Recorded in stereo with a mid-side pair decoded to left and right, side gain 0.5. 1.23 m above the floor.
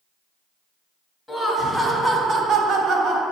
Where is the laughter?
5° left, 0.8 m; by 3.2 s 80° right, 0.9 m.